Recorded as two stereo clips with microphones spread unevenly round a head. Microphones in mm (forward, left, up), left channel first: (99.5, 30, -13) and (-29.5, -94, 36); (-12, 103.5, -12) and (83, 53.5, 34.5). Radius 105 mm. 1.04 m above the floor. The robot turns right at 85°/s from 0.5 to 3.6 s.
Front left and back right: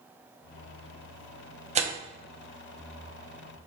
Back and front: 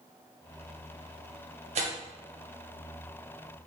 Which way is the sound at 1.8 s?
80° right.